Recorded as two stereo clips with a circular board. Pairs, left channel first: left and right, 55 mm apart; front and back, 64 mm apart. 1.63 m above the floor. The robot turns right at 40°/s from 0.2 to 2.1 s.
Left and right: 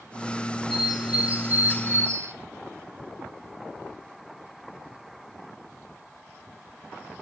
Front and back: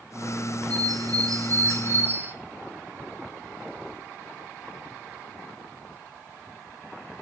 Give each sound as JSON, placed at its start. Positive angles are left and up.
{"t": 0.7, "sound": "a bird", "azimuth_deg": 180, "distance_m": 0.8}